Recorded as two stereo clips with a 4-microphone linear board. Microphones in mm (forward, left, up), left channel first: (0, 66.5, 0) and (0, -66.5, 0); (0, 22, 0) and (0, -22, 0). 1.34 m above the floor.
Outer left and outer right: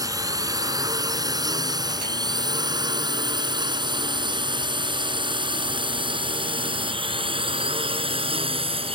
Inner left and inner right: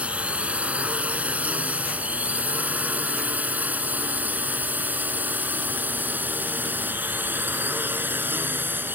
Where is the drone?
25° right (ahead or behind); by 8.9 s 40° right (ahead or behind).